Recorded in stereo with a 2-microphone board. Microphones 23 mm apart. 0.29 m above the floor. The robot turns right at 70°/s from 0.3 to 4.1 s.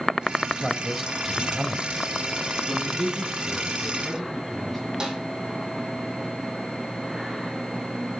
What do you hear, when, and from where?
0.6 s a man speaking: 155° left, 1.4 m; by 2.0 s 105° right, 1.4 m
2.7 s a man speaking: 95° right, 3 m; by 4.8 s 5° left, 3 m
5.0 s a snare drum: 30° right (ahead or behind), 3.5 m